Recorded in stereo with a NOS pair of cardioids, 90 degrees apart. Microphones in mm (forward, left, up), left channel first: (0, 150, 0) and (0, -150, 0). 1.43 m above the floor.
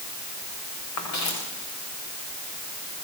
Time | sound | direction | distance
1.0 | footsteps | 65° left | 5.5 m